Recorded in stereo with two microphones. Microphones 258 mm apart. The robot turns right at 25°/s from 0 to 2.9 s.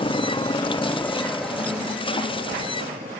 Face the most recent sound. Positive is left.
turn(degrees=-30)  # may be behind; listen again after turning